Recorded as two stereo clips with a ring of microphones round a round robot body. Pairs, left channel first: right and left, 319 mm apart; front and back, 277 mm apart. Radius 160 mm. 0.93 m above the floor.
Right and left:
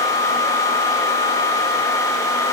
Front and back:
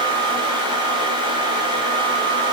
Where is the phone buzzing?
I don't hear a phone buzzing.